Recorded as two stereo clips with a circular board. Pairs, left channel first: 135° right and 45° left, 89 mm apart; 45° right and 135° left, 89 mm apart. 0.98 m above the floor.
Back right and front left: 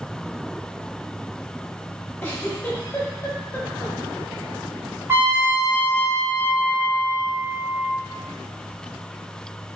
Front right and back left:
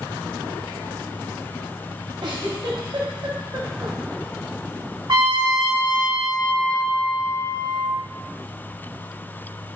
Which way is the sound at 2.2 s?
160° left.